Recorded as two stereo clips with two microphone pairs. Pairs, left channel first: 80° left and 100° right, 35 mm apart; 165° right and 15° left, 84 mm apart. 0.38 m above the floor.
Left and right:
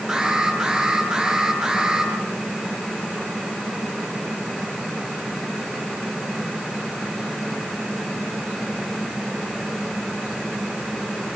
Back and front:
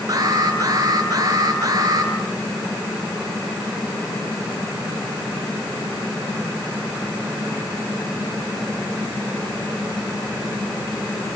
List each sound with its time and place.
0.1 s an alarm: 30° right, 9 m